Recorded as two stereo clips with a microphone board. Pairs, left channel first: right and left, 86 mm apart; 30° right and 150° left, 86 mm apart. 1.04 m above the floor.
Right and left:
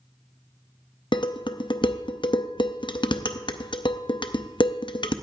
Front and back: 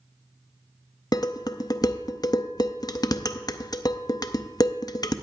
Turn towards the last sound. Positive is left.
turn(degrees=-70)